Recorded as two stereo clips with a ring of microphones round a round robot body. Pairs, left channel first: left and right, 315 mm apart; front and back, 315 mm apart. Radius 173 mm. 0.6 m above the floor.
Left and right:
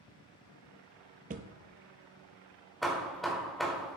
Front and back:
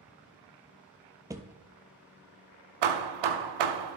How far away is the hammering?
About 0.7 m.